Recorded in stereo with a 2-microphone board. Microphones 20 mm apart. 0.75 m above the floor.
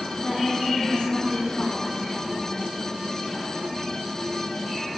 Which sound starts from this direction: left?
A woman speaking, at 0.2 s.